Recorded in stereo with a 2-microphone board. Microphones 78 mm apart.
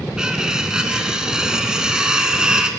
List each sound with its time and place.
0.2 s cutlery clinking: 10° right (ahead or behind), 0.7 m